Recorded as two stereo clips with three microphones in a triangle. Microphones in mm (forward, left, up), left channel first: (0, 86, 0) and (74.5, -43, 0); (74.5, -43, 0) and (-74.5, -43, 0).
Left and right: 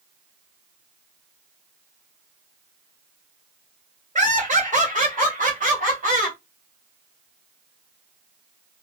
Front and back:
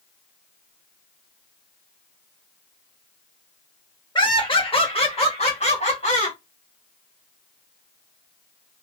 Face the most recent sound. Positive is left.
turn(degrees=-35)